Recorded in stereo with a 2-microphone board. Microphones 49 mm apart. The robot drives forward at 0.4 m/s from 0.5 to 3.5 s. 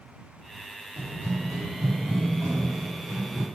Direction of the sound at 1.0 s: 55° right (ahead or behind).